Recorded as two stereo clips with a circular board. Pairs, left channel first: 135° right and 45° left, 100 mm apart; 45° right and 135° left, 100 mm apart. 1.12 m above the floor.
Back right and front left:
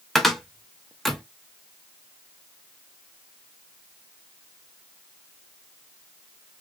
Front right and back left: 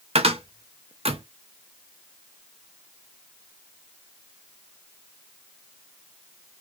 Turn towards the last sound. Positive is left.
turn(degrees=140)